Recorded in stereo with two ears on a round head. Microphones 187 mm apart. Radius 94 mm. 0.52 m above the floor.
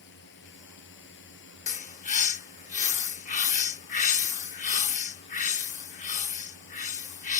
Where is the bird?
35° left (ahead or behind).